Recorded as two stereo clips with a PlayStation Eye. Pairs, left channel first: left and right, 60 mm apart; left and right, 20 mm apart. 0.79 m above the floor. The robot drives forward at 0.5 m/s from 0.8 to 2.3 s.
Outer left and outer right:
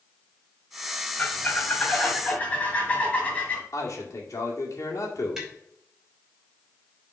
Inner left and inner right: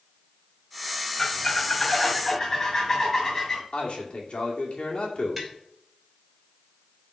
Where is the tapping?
10° right (ahead or behind), 3 m.